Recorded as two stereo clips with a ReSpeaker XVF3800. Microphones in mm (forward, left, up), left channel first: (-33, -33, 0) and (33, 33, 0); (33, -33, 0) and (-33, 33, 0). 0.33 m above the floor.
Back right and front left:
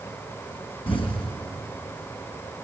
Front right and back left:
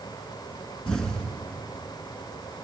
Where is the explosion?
130° right, 2.5 m.